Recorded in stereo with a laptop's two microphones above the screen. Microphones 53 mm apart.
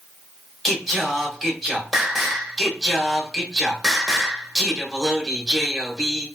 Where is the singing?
5° right (ahead or behind), 0.7 m.